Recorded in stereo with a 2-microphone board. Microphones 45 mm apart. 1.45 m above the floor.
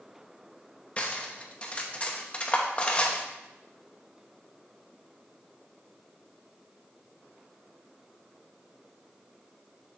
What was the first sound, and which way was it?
Cutlery clinking, 25° left (ahead or behind).